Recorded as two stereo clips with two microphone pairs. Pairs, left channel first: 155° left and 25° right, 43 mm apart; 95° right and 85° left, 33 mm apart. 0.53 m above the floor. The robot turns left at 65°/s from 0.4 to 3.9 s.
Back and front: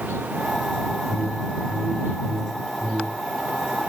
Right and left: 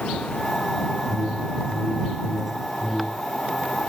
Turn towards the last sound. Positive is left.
turn(degrees=-115)